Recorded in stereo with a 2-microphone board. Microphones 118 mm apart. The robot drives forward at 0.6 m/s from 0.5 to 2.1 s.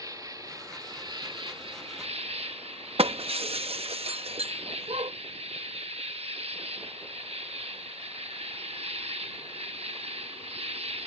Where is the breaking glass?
60° right (ahead or behind).